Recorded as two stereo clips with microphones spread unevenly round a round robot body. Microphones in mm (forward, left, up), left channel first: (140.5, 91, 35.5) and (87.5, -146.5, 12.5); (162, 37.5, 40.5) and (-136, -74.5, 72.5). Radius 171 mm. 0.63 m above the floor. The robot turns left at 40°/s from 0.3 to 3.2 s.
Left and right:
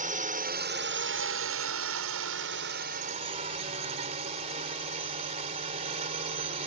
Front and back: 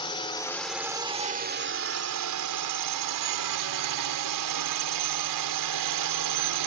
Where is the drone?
50° right; by 6.7 s 170° right.